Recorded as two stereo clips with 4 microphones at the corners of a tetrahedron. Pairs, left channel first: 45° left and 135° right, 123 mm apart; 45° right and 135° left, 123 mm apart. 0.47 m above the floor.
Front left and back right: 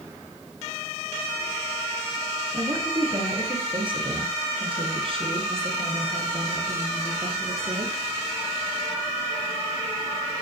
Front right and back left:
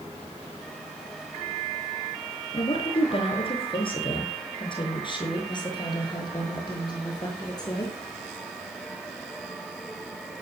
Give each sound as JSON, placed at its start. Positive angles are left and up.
{"t": 2.5, "sound": "a woman speaking", "azimuth_deg": -80, "distance_m": 5.0}